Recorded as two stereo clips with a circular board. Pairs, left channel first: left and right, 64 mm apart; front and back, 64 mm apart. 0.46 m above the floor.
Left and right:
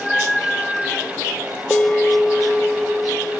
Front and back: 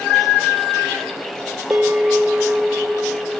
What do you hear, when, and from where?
1.7 s a bell: 150° left, 0.6 m